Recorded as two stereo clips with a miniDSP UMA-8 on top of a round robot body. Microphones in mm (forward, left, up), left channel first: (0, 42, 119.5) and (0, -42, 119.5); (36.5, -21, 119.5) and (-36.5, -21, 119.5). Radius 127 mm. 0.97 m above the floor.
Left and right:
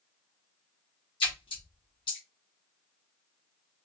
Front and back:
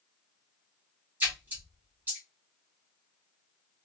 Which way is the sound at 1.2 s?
115° left.